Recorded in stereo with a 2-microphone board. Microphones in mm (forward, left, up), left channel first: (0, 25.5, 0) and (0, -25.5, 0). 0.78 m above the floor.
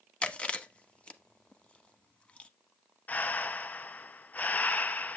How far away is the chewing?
About 0.9 m.